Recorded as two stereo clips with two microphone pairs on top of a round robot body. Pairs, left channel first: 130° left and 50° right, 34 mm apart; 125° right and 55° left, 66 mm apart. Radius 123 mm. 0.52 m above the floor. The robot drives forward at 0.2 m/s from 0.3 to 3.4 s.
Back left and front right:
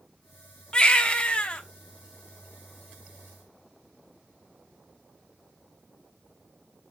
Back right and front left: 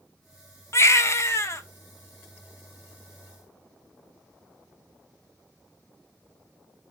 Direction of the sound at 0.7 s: 165° right.